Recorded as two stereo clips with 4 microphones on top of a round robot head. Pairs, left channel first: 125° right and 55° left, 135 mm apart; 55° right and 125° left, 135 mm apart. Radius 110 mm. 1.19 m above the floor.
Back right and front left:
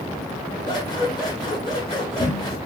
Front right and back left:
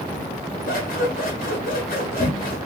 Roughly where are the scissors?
Right.